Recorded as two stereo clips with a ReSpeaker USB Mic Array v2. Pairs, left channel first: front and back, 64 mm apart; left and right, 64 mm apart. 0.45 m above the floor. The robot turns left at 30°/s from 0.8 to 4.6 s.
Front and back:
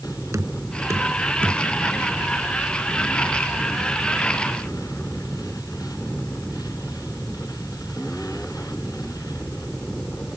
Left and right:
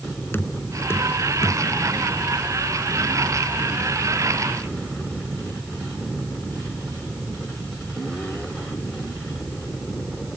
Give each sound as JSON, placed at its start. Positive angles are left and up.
{"t": 0.3, "sound": "knocking", "azimuth_deg": 145}